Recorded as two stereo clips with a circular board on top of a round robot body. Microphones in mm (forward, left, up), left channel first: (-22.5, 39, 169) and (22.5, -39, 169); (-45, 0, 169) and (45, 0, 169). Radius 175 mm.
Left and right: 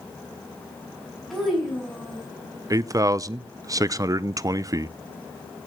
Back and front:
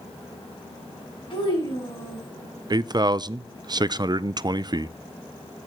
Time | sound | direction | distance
1.3 | a child speaking | 150° right | 5.5 m
2.7 | a man speaking | 20° right | 0.6 m